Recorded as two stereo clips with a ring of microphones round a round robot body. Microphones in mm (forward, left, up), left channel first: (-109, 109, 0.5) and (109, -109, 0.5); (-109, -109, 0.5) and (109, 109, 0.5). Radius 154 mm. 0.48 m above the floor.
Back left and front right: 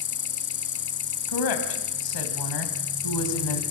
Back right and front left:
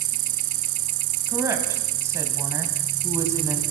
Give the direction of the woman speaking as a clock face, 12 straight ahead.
8 o'clock.